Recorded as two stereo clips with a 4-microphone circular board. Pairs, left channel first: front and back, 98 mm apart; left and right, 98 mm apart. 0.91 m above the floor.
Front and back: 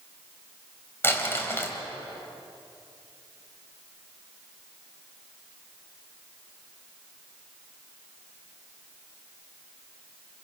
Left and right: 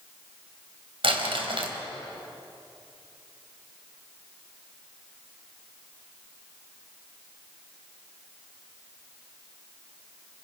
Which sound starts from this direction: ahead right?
Crumpling, at 1.0 s.